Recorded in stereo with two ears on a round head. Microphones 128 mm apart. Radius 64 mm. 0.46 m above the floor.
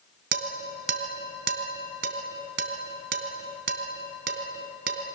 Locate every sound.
0.3 s dishes clattering: 80° right, 3 m